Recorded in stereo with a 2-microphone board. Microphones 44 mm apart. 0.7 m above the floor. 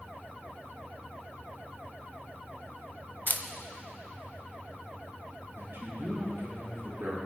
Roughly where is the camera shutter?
Left.